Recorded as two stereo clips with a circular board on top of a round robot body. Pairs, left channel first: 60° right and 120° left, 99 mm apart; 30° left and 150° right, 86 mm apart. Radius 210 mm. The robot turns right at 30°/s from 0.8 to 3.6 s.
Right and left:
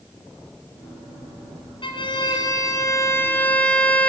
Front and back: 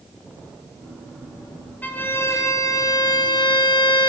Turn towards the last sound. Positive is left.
turn(degrees=15)